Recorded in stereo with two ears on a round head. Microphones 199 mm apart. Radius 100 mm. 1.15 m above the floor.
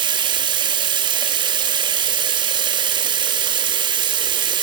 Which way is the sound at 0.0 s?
20° right (ahead or behind).